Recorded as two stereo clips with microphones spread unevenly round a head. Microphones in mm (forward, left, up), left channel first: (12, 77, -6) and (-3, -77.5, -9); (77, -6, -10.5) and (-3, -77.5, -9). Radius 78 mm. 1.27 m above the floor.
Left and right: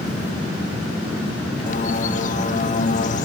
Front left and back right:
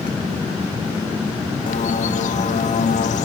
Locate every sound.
1.7 s a bird: 40° left, 1.5 m